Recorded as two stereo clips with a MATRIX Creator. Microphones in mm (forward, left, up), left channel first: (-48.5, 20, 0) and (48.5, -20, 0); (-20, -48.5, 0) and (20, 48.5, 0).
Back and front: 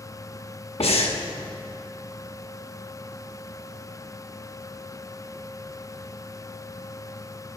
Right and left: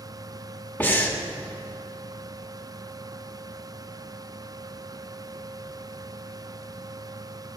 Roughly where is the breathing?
Behind.